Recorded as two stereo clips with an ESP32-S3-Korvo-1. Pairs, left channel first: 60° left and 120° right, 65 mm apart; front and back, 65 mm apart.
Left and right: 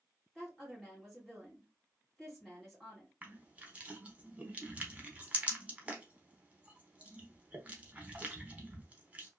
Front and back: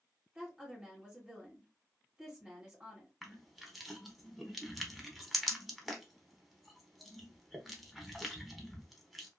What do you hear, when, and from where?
0.3 s a woman speaking: 145° left, 1.6 m
3.2 s crushing: 95° right, 0.7 m